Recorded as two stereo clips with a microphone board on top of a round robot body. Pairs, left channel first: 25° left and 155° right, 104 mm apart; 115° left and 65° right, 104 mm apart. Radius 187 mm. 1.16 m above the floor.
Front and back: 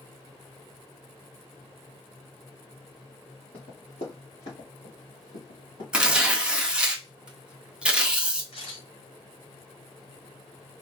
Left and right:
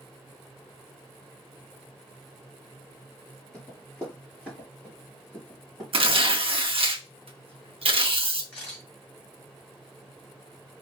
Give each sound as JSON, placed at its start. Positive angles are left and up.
{"t": 3.5, "sound": "running footsteps", "azimuth_deg": 35, "distance_m": 1.6}
{"t": 5.9, "sound": "tearing paper", "azimuth_deg": -80, "distance_m": 0.8}
{"t": 8.5, "sound": "a camera shutter", "azimuth_deg": 35, "distance_m": 2.5}